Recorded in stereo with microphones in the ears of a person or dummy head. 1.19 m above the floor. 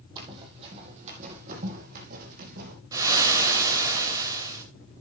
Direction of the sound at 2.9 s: 10° right (ahead or behind).